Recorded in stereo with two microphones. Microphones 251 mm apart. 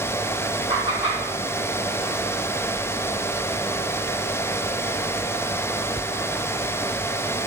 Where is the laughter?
60° left (ahead or behind), 2.5 m.